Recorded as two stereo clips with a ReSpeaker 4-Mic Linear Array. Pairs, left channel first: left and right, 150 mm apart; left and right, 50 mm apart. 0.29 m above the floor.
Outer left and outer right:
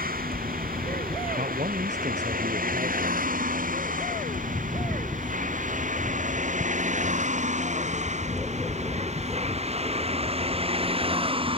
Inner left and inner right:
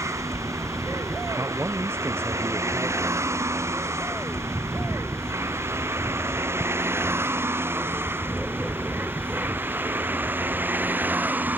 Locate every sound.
0.0 s a vehicle: 75° right (ahead or behind); by 11.6 s 35° right (ahead or behind)
1.4 s a man speaking: 55° right (ahead or behind)